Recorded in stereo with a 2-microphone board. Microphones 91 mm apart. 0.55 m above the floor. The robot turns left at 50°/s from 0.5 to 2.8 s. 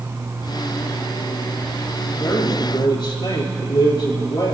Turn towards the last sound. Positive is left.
turn(degrees=65)  # may be behind; listen again after turning